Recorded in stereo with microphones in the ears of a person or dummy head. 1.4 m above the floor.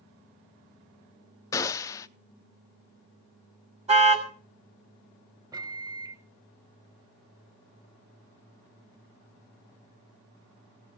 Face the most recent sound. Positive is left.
turn(degrees=-15)  # may be behind; listen again after turning